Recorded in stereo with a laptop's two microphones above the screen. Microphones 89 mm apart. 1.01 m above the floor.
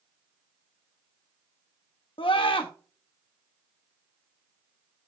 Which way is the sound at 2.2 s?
70° left (ahead or behind).